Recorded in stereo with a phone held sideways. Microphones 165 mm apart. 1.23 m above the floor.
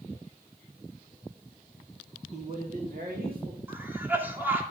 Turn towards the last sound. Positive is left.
turn(degrees=-15)  # may be behind; listen again after turning